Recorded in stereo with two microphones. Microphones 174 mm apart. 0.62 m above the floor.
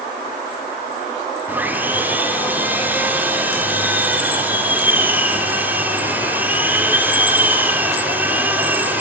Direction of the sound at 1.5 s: 10° right (ahead or behind).